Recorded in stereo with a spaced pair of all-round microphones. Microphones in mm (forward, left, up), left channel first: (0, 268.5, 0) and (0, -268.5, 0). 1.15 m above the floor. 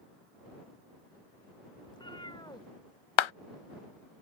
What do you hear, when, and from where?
1.9 s a cat meowing: 10° left (ahead or behind)
3.2 s a clap: 60° left (ahead or behind)